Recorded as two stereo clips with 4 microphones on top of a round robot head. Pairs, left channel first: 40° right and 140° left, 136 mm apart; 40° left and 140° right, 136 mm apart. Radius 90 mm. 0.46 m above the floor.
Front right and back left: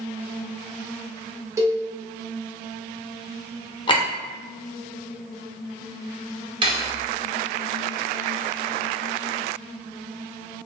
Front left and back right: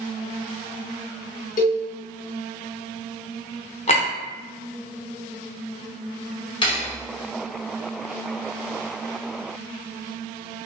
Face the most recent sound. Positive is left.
turn(degrees=90)